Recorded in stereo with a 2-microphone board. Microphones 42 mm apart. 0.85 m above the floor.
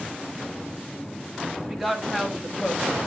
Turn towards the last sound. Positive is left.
turn(degrees=35)  # may be behind; listen again after turning